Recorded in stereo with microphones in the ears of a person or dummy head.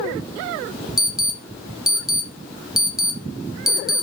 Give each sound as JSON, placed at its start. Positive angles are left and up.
{"t": 1.0, "sound": "an alarm", "side_deg": -5, "distance_m": 0.6}